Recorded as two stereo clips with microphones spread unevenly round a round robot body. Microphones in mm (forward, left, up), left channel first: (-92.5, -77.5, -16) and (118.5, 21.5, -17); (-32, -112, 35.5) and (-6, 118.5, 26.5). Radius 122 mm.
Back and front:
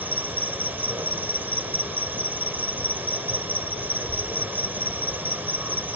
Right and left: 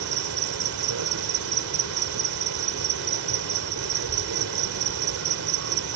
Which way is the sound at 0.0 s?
105° left.